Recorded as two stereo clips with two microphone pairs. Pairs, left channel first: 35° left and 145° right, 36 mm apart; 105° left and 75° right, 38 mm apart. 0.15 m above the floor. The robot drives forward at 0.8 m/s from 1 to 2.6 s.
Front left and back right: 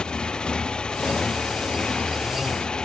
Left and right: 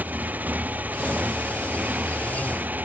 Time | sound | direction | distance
0.0 | a motorcycle | 35° right | ?